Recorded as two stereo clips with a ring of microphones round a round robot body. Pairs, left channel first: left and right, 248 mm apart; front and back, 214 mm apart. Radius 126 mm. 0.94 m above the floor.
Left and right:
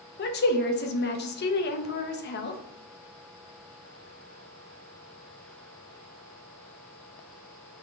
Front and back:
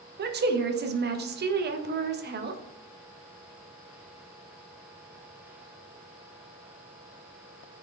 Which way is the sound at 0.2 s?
140° left.